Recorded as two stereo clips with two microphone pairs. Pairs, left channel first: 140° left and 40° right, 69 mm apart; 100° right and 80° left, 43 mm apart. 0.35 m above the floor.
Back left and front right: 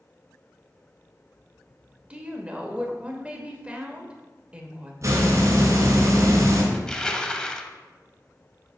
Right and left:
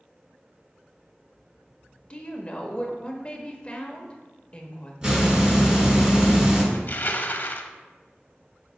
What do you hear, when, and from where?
2.1 s a woman speaking: 95° right, 1.0 m
5.0 s a hiss: 5° left, 1.9 m
6.7 s crushing: 140° right, 0.5 m